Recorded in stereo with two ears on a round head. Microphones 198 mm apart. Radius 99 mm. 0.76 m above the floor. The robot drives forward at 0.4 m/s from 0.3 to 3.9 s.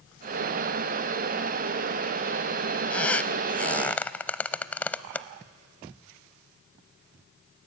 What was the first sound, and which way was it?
A squeak, 5° left (ahead or behind).